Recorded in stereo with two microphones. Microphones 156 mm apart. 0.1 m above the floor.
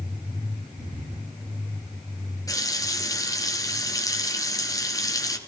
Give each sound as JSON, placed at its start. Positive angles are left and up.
{"t": 2.5, "sound": "a running tap", "side_deg": 20, "distance_m": 1.1}